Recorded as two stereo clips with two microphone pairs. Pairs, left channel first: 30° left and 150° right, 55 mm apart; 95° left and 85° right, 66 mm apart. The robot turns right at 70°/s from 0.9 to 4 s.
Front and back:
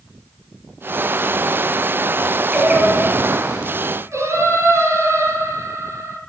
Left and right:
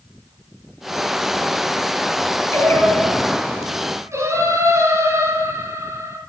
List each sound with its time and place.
2.5 s singing: 135° left, 3.5 m; by 6.2 s 120° right, 3.5 m